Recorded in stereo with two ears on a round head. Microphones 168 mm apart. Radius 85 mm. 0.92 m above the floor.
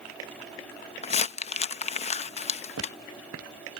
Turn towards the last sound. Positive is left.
turn(degrees=-85)